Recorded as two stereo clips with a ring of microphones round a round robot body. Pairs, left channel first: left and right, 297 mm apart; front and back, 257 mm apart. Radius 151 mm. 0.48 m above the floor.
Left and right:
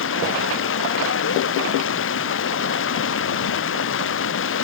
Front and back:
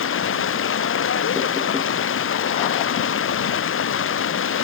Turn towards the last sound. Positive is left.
turn(degrees=40)